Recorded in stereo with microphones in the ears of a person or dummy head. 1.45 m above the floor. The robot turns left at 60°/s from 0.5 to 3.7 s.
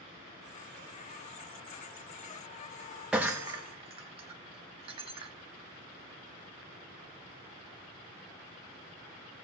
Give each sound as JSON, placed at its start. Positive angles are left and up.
{"t": 3.1, "sound": "breaking glass", "side_deg": -5, "distance_m": 1.3}